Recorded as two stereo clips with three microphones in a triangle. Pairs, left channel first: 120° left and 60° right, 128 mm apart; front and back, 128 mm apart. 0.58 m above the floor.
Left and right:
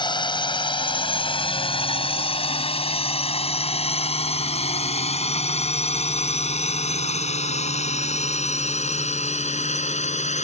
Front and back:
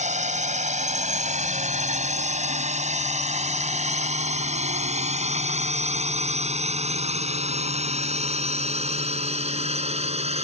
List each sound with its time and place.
0.0 s a drone: 170° left; by 10.4 s 145° left